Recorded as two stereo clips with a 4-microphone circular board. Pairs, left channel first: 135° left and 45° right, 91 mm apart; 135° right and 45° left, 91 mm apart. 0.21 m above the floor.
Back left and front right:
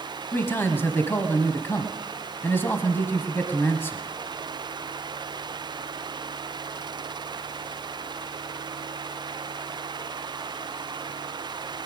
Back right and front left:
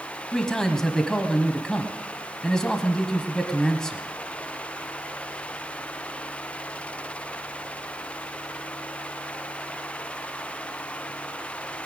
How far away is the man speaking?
About 1.0 m.